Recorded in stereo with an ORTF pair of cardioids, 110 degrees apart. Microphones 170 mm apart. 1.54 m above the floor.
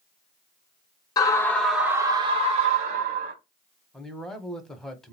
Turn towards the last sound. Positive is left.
turn(degrees=5)